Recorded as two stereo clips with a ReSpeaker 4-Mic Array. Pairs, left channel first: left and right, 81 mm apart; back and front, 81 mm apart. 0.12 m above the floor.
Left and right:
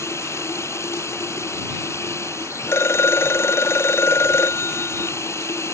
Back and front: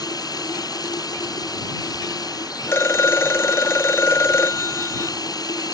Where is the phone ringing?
135° left.